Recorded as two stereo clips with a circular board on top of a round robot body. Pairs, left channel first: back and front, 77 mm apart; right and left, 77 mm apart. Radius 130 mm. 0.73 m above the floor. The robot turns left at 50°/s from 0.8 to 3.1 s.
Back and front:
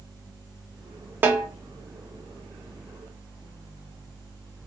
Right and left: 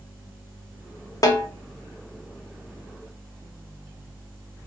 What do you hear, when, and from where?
1.2 s a snare drum: 60° right, 0.8 m; by 1.5 s 75° right, 0.8 m